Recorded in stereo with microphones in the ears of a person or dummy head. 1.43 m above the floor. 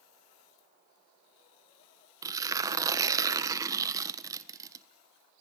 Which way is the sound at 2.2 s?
20° right (ahead or behind).